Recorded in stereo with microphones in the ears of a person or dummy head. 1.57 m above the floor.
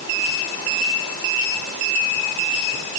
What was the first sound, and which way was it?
Only background noise.